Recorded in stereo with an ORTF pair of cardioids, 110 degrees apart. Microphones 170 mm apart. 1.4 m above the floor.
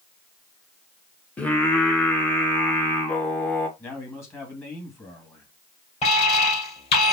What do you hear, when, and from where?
1.4 s singing: 10° left, 1.4 m
3.8 s a man speaking: 15° left, 2.5 m
6.0 s an alarm: 40° left, 3.5 m